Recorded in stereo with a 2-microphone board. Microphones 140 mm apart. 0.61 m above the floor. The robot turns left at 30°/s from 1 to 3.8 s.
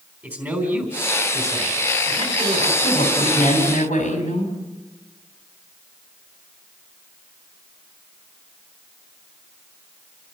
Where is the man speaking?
20° right, 3.5 m; by 2.7 s 70° right, 3.5 m.